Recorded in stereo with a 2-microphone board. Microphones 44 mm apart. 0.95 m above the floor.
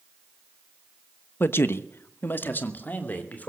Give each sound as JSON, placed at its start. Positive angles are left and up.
{"t": 1.4, "sound": "a man speaking", "side_deg": 50, "distance_m": 0.9}